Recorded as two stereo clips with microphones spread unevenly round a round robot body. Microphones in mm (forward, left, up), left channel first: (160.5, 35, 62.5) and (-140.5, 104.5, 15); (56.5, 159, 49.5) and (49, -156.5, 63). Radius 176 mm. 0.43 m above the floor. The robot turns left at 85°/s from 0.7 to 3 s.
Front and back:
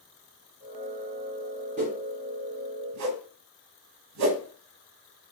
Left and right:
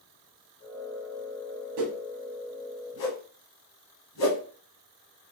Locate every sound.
1.8 s a whoosh: 120° right, 0.9 m; by 4.4 s 135° left, 0.9 m